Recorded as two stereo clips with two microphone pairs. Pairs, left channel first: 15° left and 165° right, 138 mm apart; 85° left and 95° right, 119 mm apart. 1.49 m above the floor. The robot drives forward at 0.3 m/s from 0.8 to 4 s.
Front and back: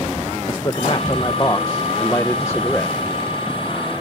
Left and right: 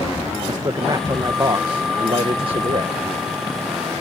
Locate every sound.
0.5 s a man speaking: 40° right; by 3.0 s 60° right